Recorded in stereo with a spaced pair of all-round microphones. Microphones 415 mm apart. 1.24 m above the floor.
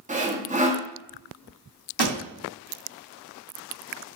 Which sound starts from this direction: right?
A pop, at 2.0 s.